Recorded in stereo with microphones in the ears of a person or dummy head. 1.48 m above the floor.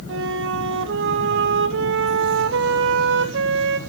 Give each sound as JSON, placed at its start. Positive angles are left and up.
{"t": 0.1, "sound": "a flute", "side_deg": -65, "distance_m": 1.3}